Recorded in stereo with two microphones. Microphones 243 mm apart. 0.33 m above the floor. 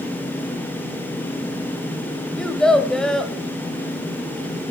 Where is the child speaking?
5° left (ahead or behind), 0.7 m.